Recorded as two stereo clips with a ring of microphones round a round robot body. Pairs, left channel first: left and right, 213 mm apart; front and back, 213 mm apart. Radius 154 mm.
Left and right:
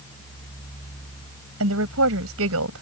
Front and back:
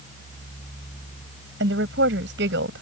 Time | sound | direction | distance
1.6 | a woman speaking | 125° right | ?